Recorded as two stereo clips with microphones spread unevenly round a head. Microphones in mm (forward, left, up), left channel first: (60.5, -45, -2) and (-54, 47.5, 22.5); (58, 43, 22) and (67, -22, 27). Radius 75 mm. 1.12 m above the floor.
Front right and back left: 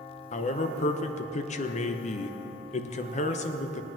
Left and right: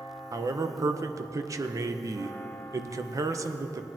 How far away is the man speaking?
About 0.8 m.